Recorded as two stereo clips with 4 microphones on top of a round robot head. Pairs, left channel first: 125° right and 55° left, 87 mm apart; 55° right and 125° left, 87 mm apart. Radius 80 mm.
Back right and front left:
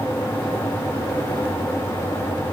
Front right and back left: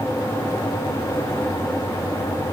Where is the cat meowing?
No cat meowing in this recording.